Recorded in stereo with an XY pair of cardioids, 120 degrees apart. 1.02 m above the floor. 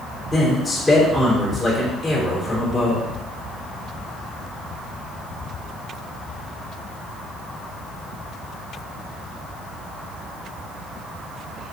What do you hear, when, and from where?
0.3 s a man speaking: 15° left, 3 m